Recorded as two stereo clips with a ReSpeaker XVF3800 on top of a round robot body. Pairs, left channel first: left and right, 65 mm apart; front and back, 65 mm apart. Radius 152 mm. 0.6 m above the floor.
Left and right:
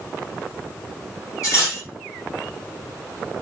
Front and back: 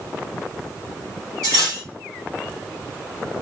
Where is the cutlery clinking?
135° left, 2.0 m.